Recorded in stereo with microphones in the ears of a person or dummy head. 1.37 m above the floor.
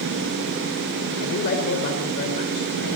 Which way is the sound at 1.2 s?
60° left (ahead or behind).